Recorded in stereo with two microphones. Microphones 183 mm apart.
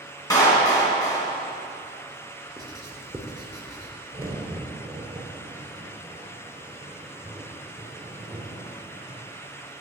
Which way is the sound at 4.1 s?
30° right (ahead or behind).